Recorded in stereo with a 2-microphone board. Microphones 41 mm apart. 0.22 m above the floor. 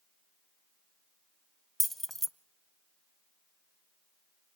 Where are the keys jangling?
5° left (ahead or behind), 0.6 m.